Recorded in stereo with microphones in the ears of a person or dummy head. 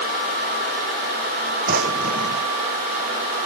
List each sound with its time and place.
1.7 s a drawer: 50° right (ahead or behind)